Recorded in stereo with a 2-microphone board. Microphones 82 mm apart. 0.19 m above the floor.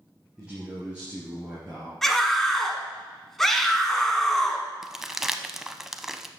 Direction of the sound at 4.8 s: 5° right (ahead or behind).